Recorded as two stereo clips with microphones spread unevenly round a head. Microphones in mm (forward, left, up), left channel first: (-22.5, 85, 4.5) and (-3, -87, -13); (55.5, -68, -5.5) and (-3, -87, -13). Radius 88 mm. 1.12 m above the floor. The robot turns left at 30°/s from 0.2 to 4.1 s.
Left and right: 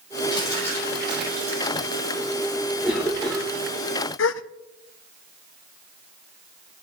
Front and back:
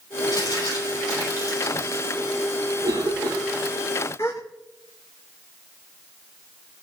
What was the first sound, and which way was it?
Crumpling, 30° left.